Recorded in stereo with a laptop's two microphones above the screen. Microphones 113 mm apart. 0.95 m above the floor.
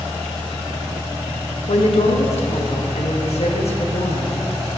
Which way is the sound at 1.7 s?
65° left (ahead or behind).